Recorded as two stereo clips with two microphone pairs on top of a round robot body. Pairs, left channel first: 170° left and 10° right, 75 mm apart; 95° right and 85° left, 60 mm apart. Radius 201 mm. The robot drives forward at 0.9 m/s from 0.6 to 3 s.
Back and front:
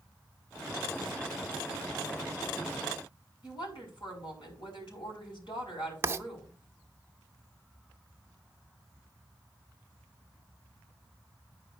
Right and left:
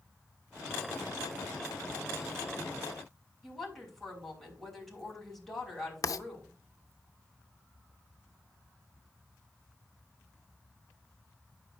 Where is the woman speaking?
Straight behind, 5 m.